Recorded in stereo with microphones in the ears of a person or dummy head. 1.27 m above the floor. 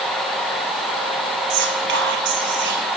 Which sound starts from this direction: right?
Whispering, at 1.5 s.